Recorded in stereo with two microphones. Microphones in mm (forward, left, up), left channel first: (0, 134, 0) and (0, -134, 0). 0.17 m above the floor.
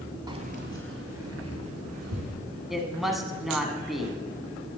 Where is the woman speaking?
Centre (ahead or behind), 1.2 m.